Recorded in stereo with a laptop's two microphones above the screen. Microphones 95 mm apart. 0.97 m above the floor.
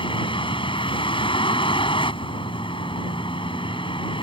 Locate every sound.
0.0 s a vehicle: 65° left (ahead or behind)